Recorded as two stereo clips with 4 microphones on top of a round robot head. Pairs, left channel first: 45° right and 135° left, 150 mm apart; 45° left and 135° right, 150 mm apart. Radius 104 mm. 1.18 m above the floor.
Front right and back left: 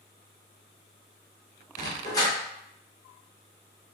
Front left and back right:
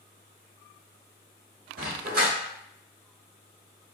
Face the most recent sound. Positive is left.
turn(degrees=-110)